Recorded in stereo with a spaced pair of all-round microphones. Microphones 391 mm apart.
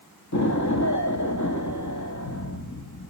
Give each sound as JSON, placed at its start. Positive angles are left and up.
{"t": 0.3, "sound": "an explosion", "side_deg": 45, "distance_m": 1.6}